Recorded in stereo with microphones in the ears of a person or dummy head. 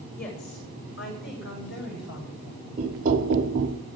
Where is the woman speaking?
50° left (ahead or behind), 6.5 m; by 2.7 s 70° left (ahead or behind), 8 m.